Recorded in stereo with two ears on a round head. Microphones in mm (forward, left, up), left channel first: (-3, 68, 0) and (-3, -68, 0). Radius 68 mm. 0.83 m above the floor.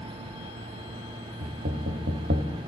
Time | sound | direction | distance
1.4 | knocking | 65° right (ahead or behind) | 1.2 m